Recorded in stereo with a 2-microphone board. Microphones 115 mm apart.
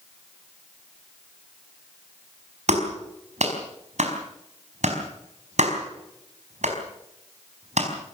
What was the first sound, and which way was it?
A clap, 70° right (ahead or behind).